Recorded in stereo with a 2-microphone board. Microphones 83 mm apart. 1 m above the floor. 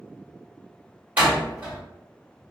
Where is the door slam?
20° right (ahead or behind), 1.5 m.